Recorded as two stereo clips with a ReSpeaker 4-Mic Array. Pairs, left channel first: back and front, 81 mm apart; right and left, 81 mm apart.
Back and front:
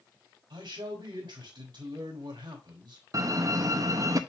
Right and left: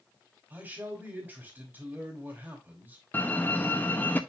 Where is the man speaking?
20° left, 3.5 m.